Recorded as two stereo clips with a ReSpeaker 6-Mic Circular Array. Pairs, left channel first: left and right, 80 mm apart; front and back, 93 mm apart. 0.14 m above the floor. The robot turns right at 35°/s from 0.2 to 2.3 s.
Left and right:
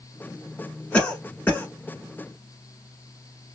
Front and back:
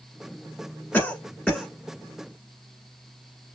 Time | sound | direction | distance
0.9 | a cough | 40° left | 1.2 m